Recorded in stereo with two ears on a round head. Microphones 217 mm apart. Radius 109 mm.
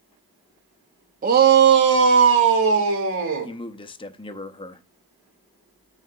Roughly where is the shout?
Right.